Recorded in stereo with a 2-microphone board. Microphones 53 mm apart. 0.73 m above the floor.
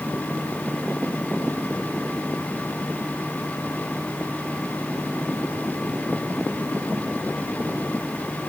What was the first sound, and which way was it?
Only background noise.